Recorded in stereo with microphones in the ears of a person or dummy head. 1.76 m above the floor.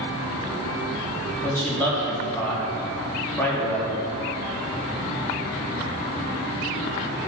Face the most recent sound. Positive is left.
turn(degrees=15)  # may be behind; listen again after turning